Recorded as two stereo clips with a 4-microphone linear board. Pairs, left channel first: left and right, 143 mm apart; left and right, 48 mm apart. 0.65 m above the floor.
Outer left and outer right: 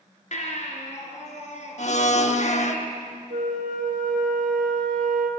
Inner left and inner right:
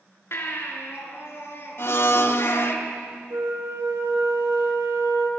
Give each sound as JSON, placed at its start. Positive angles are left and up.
{"t": 0.3, "sound": "a baby crying", "side_deg": 55, "distance_m": 3.5}
{"t": 1.8, "sound": "a blender", "side_deg": 55, "distance_m": 1.0}
{"t": 3.3, "sound": "a flute", "side_deg": -75, "distance_m": 3.5}